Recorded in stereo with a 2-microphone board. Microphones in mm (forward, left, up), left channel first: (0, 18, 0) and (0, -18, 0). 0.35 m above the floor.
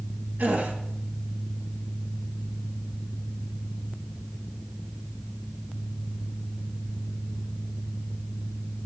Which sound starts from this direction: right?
A gasp, at 0.4 s.